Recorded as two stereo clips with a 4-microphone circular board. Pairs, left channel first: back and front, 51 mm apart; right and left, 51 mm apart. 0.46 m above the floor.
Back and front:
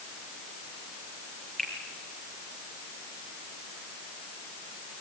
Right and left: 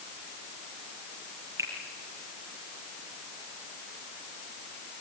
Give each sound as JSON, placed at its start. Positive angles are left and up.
{"t": 1.6, "sound": "a finger snap", "azimuth_deg": 105, "distance_m": 5.5}